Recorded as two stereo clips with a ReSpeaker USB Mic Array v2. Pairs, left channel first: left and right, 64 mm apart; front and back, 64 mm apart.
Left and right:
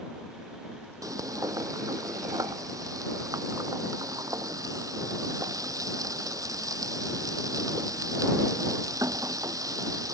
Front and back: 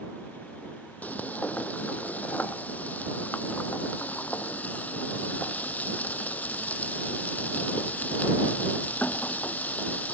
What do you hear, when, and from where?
1.0 s frying: 65° right